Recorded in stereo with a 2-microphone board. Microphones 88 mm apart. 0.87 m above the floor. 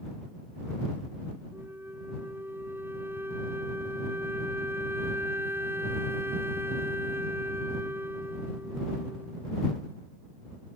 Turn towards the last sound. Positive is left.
turn(degrees=-25)  # may be behind; listen again after turning